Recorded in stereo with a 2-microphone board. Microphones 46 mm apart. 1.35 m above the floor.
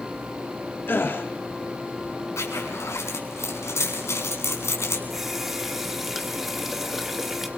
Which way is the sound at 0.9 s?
50° left (ahead or behind).